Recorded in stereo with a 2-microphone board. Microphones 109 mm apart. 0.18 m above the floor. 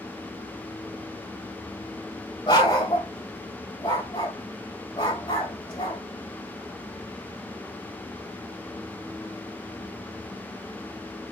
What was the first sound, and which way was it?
A dog barking, 45° left (ahead or behind).